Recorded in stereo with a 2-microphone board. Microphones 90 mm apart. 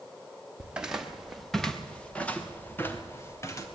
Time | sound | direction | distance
0.6 | footsteps | 10° right (ahead or behind) | 3.5 m